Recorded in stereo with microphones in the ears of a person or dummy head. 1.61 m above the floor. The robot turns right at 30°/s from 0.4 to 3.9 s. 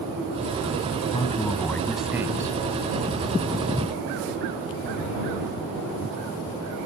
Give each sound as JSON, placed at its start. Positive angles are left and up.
{"t": 1.1, "sound": "a man speaking", "azimuth_deg": 155}